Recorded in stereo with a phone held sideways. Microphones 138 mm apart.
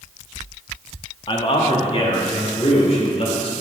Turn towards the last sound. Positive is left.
turn(degrees=50)  # may be behind; listen again after turning